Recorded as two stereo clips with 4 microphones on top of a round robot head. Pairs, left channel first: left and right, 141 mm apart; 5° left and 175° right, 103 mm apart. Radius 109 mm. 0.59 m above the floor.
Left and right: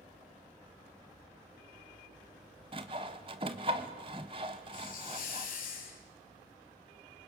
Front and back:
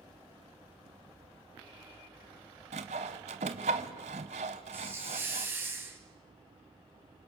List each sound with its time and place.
2.7 s sawing: 150° right, 0.7 m
4.7 s a hiss: 115° left, 4 m